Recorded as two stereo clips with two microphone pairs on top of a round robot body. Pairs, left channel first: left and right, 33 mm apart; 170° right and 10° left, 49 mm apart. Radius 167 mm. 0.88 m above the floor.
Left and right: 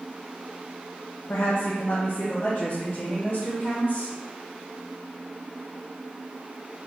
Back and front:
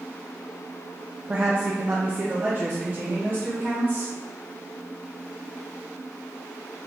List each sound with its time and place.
1.3 s a woman speaking: 80° left, 0.6 m; by 4.1 s 55° left, 2.0 m